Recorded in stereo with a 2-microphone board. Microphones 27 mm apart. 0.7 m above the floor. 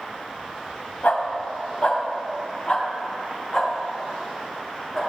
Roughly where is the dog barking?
Left.